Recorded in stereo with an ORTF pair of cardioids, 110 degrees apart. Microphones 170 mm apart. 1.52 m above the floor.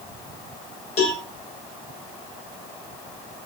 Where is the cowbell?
40° left, 7.5 m.